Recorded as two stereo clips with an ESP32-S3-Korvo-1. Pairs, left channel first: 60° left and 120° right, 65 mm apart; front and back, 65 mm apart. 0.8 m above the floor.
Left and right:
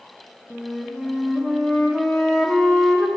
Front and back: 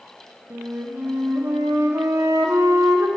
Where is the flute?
145° left, 0.9 m.